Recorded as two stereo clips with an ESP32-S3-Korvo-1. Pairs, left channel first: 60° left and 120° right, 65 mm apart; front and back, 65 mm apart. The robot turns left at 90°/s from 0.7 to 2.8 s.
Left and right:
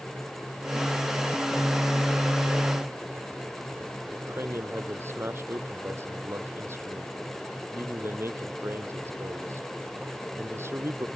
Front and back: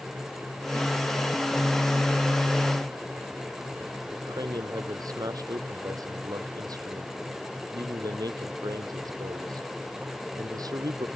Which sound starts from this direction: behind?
A man speaking, at 4.1 s.